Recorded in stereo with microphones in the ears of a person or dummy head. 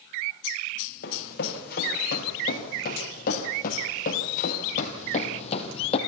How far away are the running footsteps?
About 5 m.